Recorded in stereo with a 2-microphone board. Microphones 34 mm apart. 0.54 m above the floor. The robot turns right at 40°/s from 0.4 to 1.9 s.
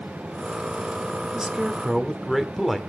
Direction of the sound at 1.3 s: 25° right (ahead or behind).